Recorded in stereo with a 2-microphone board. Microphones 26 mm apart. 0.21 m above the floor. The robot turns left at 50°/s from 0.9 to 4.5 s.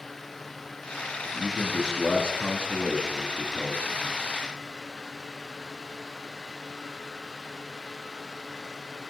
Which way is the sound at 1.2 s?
135° left.